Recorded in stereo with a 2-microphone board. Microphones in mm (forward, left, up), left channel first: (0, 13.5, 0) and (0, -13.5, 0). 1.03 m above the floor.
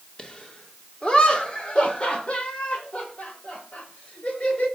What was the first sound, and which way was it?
Laughter, 30° left (ahead or behind).